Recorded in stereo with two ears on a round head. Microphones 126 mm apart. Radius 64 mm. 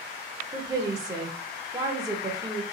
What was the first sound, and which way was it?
A woman speaking, 25° right (ahead or behind).